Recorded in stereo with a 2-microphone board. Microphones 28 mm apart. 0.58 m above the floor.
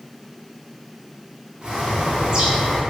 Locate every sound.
1.6 s a bird: 30° right (ahead or behind), 0.7 m